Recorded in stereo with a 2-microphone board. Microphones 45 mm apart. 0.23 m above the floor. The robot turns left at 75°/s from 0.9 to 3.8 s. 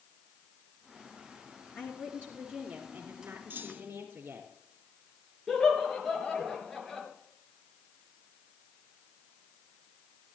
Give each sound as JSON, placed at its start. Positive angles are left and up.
{"t": 1.8, "sound": "a woman speaking", "azimuth_deg": 60, "distance_m": 2.5}
{"t": 3.5, "sound": "a clunk", "side_deg": -55, "distance_m": 2.5}
{"t": 5.5, "sound": "laughter", "side_deg": 5, "distance_m": 4.0}